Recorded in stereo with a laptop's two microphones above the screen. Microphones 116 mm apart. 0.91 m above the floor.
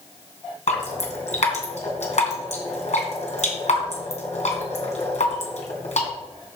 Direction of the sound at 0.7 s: 80° left.